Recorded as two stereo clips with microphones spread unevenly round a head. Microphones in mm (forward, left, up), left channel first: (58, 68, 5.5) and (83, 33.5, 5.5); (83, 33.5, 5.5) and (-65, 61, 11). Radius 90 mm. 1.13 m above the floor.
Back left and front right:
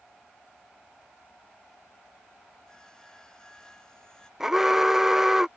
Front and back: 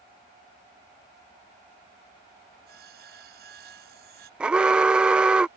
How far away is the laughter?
No laughter in this recording.